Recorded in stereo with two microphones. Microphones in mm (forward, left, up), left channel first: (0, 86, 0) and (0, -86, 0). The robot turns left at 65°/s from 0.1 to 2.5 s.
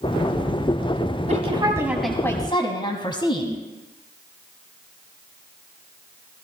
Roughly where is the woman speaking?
Behind right.